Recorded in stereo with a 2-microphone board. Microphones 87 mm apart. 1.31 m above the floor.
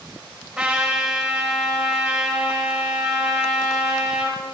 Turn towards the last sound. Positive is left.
turn(degrees=-10)  # may be behind; listen again after turning